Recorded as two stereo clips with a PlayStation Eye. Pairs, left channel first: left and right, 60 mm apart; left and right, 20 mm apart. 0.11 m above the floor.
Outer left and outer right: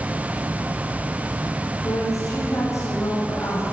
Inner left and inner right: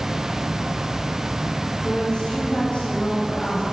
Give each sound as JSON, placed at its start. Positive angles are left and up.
{"t": 1.8, "sound": "a woman speaking", "side_deg": 55, "distance_m": 4.5}